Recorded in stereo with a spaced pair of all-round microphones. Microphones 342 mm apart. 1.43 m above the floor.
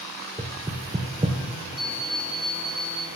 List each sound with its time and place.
0.4 s knocking: 20° right (ahead or behind), 0.8 m
1.8 s an alarm clock: 65° left (ahead or behind), 4 m